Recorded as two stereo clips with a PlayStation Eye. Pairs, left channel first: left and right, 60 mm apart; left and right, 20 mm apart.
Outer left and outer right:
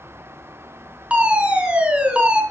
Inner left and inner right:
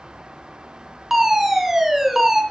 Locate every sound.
1.1 s a fire alarm: 20° right (ahead or behind), 3 m